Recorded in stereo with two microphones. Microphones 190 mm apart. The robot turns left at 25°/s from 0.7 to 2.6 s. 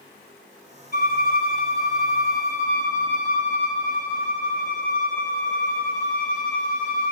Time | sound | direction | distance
0.9 | a violin | 55° left | 0.6 m